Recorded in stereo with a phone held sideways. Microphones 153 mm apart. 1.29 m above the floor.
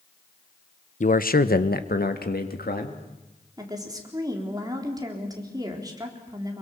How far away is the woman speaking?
About 4 m.